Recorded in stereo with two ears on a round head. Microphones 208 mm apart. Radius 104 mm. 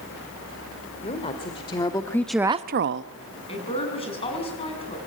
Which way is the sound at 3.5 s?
25° left (ahead or behind).